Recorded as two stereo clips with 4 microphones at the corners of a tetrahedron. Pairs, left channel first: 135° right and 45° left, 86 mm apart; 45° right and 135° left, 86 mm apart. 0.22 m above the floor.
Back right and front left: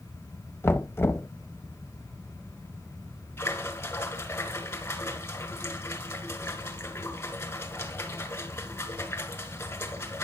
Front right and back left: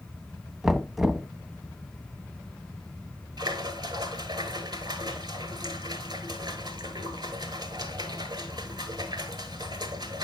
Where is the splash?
160° left, 1.4 m.